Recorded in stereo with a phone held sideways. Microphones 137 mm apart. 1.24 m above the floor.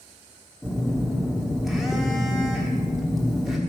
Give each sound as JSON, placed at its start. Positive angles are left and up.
{"t": 0.6, "sound": "a phone buzzing", "side_deg": -5, "distance_m": 1.0}